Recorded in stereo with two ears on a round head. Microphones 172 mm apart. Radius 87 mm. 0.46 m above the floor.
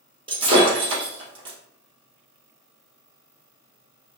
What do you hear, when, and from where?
0.3 s breaking glass: 30° right (ahead or behind), 2 m